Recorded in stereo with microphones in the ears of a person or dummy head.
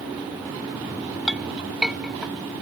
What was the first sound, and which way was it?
A clink, 5° right (ahead or behind).